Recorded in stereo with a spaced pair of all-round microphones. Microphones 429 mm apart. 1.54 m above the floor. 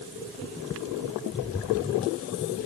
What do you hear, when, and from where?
Only background noise.